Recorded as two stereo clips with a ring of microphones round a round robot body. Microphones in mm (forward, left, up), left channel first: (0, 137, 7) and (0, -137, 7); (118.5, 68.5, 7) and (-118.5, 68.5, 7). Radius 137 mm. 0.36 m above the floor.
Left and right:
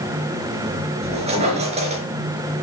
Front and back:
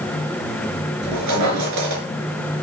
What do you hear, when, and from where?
1.0 s a squeak: 160° right, 4 m